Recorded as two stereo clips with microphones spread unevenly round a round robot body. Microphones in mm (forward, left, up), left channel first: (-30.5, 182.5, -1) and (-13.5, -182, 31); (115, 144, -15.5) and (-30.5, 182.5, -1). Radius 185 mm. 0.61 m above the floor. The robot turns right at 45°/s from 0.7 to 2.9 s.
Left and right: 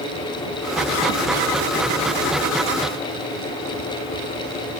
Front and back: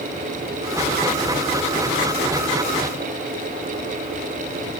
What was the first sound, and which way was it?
Only background noise.